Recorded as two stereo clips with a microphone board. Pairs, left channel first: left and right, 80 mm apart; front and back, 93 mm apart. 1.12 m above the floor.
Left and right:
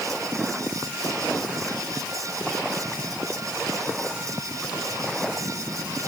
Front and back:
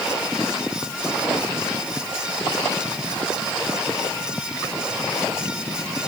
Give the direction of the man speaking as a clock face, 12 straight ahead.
No man speaking in this recording.